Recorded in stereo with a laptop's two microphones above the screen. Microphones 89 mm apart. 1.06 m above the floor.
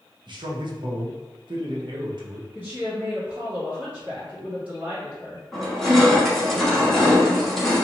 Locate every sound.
0.3 s a man speaking: 60° right (ahead or behind), 0.8 m
2.5 s a woman speaking: 15° right (ahead or behind), 1.6 m
5.5 s crushing: centre (ahead or behind), 0.9 m